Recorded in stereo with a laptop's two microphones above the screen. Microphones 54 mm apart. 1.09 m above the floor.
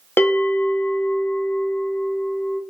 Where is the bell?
45° left (ahead or behind), 0.6 m.